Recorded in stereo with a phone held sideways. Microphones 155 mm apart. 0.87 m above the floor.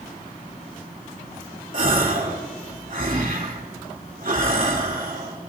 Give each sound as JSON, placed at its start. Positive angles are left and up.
{"t": 1.7, "sound": "a gasp", "side_deg": -60, "distance_m": 2.5}